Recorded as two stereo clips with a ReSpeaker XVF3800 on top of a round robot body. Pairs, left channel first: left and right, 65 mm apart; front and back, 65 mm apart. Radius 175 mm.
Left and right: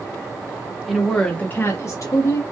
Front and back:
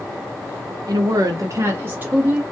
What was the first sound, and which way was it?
A woman speaking, 175° right.